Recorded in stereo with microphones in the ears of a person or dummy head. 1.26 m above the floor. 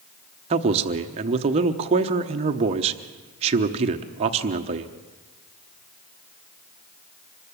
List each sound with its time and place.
0.5 s a man speaking: 35° right (ahead or behind), 1.0 m